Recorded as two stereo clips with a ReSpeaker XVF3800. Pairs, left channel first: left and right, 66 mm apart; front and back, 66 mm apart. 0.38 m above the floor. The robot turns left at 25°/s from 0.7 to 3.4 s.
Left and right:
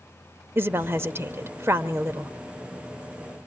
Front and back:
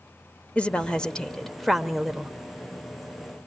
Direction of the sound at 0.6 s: 60° right.